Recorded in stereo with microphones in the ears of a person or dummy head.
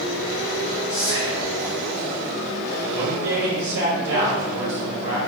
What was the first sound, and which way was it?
Whispering, 25° right (ahead or behind).